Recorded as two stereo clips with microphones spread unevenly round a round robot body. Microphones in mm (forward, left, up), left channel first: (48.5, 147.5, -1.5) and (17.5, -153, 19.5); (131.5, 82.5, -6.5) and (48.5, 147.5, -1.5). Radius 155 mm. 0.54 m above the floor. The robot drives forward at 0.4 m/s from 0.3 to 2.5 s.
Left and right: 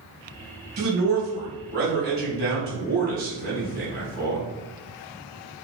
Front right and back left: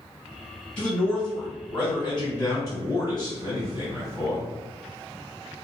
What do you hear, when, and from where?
0.8 s a man speaking: 100° right, 1.1 m; by 4.5 s 150° right, 1.4 m